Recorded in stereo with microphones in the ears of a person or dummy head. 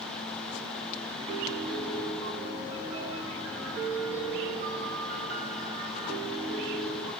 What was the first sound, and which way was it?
A piano, 45° right (ahead or behind).